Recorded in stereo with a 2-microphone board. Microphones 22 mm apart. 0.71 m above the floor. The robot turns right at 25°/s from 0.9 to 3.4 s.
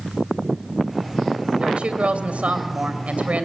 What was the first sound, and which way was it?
A woman speaking, 125° right.